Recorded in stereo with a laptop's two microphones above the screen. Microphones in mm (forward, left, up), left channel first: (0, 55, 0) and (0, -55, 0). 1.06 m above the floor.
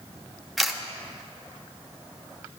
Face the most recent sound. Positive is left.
turn(degrees=0)  # may be behind; listen again after turning